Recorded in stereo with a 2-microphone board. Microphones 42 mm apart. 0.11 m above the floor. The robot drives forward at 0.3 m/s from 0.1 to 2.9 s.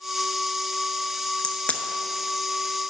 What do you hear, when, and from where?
1.4 s a crack: 40° left (ahead or behind), 0.6 m; by 1.8 s 35° left (ahead or behind), 0.7 m